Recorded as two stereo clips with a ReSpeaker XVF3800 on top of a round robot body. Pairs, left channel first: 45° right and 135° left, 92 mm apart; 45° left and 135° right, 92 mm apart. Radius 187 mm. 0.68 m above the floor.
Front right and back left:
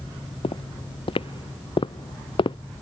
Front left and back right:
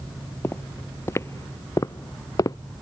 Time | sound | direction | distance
0.4 | footsteps | 20° right | ?